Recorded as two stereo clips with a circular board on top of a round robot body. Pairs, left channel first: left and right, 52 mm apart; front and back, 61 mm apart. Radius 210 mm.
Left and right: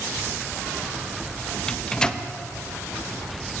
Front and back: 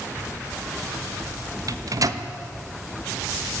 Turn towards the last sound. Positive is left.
turn(degrees=165)